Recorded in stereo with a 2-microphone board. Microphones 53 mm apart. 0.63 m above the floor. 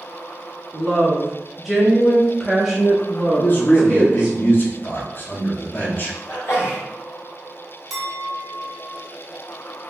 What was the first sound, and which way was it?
A woman speaking, 5° left (ahead or behind).